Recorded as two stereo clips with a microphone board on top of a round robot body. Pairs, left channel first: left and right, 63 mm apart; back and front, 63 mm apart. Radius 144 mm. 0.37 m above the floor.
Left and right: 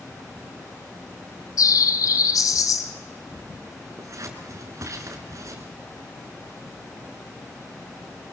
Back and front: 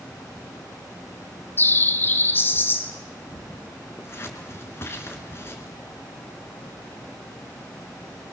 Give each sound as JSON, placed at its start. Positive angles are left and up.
{"t": 1.6, "sound": "a bird", "azimuth_deg": 120, "distance_m": 1.3}
{"t": 4.0, "sound": "scissors", "azimuth_deg": -130, "distance_m": 3.0}